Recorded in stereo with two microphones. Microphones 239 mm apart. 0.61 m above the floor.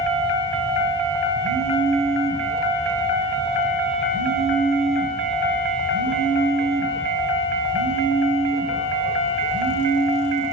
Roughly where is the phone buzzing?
Right.